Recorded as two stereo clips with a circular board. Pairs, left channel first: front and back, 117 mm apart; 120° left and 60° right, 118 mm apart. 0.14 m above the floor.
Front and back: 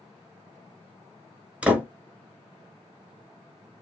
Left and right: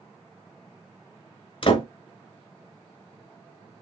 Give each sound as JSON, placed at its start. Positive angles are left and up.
{"t": 1.6, "sound": "a door slam", "azimuth_deg": 105, "distance_m": 1.2}